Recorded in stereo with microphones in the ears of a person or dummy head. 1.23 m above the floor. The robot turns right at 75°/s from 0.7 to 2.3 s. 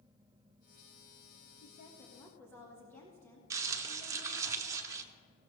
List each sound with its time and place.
1.6 s a woman speaking: 120° left, 1.8 m; by 4.5 s 175° left, 1.8 m
3.5 s crumpling: 10° right (ahead or behind), 0.9 m